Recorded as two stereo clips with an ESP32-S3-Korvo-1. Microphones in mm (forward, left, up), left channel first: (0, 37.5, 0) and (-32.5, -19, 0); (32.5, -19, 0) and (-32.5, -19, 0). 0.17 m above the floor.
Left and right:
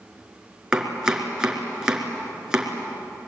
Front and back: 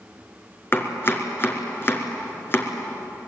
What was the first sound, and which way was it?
Chopping, 45° right.